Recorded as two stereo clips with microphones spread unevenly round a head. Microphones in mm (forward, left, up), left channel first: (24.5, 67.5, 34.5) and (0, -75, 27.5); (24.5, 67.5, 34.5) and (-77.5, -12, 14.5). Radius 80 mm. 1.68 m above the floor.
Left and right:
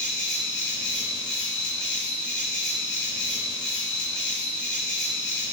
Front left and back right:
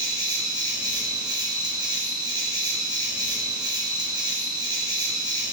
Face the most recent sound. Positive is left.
turn(degrees=165)